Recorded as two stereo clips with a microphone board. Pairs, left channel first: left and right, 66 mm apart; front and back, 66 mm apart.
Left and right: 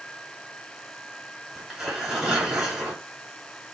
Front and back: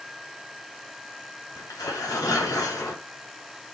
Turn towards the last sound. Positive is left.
turn(degrees=-10)